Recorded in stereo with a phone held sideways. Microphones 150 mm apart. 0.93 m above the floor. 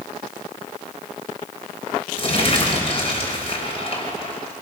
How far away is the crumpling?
About 4.5 m.